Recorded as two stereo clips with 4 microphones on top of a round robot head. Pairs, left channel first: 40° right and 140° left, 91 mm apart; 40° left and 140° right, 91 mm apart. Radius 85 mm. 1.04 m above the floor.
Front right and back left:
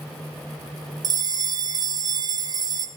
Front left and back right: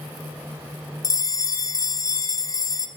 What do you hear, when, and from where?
1.0 s a bell: 95° left, 1.6 m